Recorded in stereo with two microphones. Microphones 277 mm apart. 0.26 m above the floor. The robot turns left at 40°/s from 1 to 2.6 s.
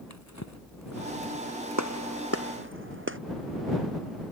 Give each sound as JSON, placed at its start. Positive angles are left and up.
{"t": 0.1, "sound": "a drawer", "side_deg": 75}
{"t": 1.8, "sound": "a gunshot", "side_deg": -80}